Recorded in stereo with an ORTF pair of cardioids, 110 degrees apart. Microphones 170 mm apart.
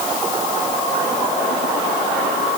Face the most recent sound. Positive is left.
No sound to turn to.